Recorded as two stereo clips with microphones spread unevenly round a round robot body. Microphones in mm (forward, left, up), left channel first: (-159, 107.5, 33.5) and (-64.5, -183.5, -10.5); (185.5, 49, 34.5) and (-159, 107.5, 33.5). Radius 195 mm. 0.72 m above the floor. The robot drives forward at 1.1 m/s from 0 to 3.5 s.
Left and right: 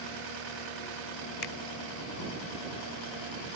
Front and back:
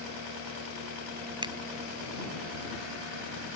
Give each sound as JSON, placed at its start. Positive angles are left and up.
{"t": 1.4, "sound": "a finger snap", "azimuth_deg": 95}